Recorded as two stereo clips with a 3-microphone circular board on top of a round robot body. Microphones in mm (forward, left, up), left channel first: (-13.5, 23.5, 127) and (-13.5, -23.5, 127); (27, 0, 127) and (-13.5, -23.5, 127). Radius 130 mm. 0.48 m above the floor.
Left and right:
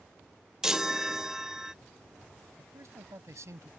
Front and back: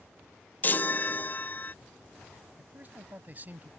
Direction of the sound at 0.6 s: 10° right.